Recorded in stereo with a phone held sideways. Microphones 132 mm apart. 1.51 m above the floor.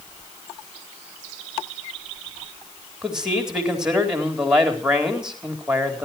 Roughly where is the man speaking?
Centre.